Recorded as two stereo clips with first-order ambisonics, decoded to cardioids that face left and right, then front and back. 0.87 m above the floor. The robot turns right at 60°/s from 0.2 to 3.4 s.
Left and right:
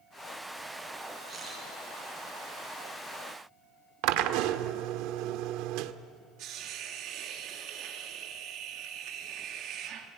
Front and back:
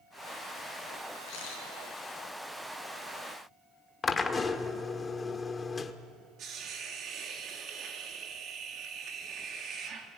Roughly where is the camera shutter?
Ahead.